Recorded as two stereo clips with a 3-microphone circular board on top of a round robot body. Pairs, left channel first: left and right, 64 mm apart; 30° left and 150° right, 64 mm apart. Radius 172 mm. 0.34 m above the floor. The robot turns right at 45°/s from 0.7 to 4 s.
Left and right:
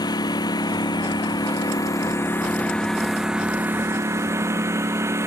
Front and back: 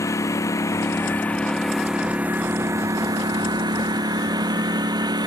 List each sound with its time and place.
0.0 s a lawn mower: 75° left; by 5.3 s 140° right